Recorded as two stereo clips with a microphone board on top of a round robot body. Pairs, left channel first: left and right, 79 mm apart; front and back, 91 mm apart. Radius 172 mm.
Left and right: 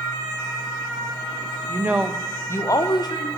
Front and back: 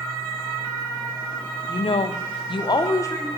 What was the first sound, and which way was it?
A woman speaking, 30° right.